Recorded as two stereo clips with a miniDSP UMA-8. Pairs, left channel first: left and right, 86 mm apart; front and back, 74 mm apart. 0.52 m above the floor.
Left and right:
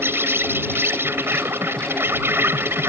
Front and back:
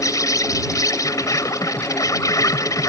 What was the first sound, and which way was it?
An insect, 30° right.